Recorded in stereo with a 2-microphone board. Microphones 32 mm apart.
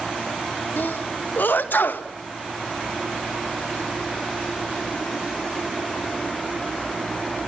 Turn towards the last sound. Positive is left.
turn(degrees=80)